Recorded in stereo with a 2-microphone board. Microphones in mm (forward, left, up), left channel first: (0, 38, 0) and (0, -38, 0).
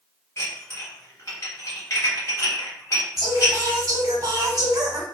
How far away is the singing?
About 1.2 m.